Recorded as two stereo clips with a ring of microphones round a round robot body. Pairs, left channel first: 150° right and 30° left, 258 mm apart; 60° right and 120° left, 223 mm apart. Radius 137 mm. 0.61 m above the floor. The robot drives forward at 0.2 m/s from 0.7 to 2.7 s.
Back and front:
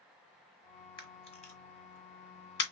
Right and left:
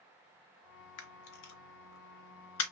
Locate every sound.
1.0 s a camera shutter: 80° right, 0.9 m; by 2.7 s 100° right, 0.9 m